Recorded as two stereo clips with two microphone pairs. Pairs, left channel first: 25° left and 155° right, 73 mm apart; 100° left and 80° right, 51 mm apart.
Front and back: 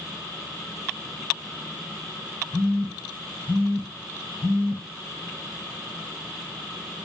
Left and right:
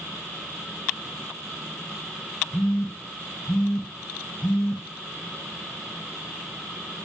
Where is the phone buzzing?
40° left, 0.9 m.